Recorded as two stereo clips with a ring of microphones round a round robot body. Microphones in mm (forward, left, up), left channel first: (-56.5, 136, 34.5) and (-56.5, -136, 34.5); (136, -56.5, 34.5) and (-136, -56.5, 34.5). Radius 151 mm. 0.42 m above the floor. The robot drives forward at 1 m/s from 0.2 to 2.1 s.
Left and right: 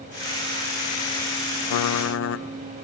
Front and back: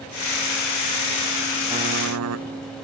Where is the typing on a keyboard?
100° left, 0.5 m; by 2.5 s 135° left, 0.7 m.